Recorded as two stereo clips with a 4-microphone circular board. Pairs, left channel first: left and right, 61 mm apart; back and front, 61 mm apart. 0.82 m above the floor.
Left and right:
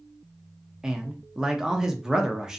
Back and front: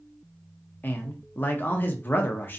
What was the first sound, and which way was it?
A man speaking, 160° right.